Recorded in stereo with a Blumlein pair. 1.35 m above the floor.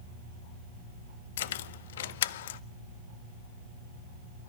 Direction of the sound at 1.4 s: 55° left.